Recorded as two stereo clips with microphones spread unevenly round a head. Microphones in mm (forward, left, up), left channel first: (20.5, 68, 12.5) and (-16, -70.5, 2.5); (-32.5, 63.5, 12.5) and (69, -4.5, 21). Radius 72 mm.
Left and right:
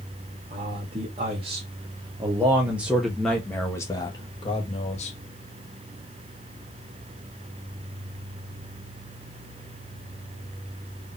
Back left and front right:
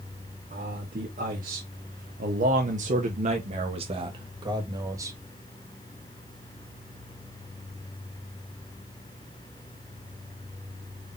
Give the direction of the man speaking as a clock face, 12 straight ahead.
2 o'clock.